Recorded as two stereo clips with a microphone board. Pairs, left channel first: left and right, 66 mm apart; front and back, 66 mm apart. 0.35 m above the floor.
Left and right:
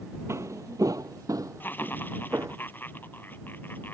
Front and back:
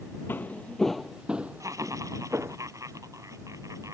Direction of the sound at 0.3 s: 55° right.